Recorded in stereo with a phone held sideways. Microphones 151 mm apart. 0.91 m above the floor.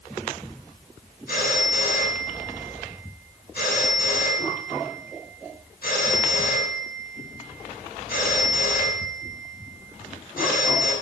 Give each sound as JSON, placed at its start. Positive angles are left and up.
{"t": 1.3, "sound": "a phone ringing", "side_deg": 75, "distance_m": 7.0}